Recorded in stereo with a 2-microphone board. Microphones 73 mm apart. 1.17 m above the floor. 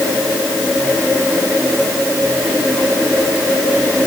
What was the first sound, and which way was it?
Only background noise.